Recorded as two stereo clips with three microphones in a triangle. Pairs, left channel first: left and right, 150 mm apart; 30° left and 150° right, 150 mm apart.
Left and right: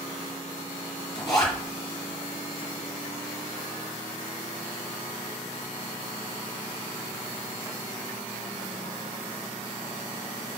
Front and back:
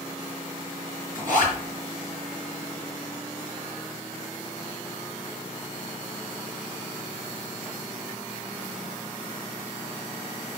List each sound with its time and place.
1.1 s a zipper: 150° left, 4.5 m